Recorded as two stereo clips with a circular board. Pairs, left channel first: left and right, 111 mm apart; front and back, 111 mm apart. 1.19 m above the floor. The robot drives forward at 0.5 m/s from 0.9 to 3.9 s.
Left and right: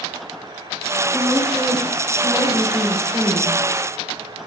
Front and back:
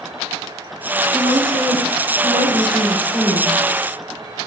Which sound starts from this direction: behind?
A woman speaking, at 1.1 s.